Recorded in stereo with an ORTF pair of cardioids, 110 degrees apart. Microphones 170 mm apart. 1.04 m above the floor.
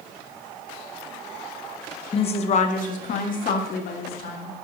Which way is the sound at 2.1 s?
30° left.